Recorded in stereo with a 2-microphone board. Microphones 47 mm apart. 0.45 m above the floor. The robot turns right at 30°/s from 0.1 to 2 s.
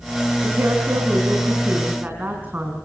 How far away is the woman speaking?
About 4.5 m.